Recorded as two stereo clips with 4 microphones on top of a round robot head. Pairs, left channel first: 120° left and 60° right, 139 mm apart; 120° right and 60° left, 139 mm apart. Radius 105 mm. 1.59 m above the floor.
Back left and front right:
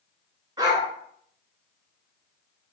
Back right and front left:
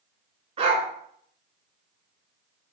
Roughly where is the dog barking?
Ahead.